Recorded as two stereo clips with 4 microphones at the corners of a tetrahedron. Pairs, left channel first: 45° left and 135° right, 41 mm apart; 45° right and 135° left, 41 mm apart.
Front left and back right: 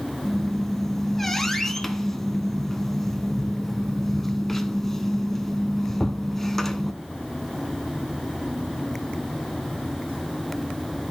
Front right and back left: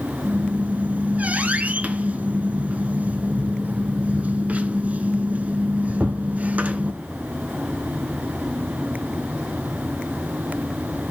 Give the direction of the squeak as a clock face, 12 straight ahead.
8 o'clock.